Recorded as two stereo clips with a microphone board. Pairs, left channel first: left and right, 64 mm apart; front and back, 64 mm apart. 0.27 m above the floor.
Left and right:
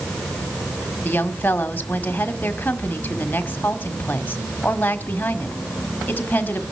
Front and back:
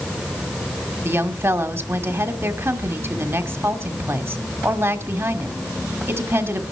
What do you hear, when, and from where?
1.1 s a woman speaking: 145° left, 1.5 m